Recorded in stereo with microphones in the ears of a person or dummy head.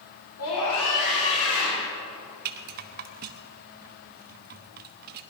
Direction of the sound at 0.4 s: 75° left (ahead or behind).